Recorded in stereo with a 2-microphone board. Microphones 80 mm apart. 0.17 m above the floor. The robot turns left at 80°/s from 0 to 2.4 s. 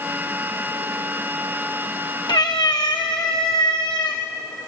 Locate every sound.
2.3 s a cat meowing: 65° left (ahead or behind), 3.5 m; by 4.2 s 55° left (ahead or behind), 3.5 m